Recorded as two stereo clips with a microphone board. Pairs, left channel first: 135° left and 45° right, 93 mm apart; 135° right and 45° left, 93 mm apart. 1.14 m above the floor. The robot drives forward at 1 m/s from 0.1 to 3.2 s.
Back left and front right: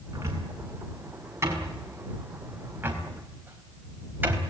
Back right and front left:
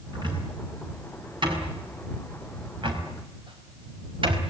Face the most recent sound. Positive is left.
turn(degrees=25)